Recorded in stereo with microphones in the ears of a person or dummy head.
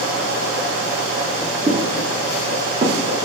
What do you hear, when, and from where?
1.7 s footsteps: 20° right (ahead or behind), 4 m; by 3.2 s 35° right (ahead or behind), 5 m